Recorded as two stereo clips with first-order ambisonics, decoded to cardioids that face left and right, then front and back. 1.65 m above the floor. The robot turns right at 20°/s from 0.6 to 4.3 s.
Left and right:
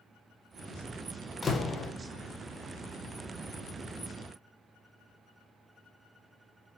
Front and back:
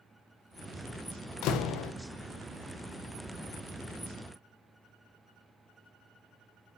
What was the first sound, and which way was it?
A door slam, 20° left.